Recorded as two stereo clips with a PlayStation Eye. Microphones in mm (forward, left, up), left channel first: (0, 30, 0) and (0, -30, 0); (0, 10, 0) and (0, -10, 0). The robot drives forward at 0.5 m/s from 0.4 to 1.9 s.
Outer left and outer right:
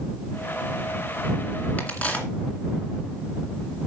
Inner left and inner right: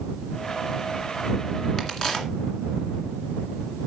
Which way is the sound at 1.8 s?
25° left (ahead or behind).